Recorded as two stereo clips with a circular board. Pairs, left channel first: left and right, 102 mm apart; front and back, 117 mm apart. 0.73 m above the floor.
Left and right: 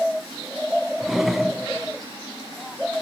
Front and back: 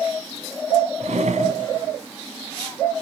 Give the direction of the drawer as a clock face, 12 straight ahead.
6 o'clock.